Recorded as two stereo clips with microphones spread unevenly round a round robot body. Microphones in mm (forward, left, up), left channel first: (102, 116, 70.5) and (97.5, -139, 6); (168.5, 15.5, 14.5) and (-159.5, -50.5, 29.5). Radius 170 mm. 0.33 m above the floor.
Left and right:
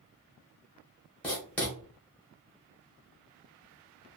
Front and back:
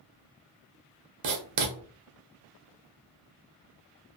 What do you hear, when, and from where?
1.2 s writing: 170° right, 0.7 m